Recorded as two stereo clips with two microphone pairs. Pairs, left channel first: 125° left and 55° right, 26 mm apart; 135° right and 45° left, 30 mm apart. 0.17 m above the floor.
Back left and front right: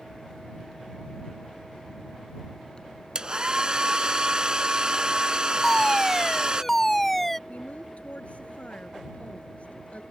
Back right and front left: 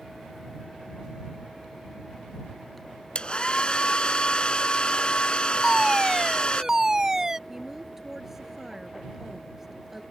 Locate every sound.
3.1 s a hair dryer: 100° right
5.6 s a fire alarm: 65° left
7.5 s a woman speaking: 125° left